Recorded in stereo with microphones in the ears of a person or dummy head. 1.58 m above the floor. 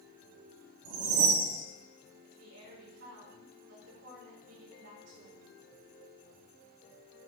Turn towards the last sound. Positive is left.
turn(degrees=-85)